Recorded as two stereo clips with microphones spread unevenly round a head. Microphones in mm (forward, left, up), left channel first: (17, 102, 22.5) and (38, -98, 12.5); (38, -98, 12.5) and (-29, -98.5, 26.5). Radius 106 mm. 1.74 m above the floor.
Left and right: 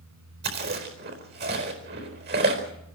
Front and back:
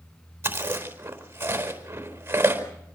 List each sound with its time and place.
0.4 s chewing: 130° right, 4.5 m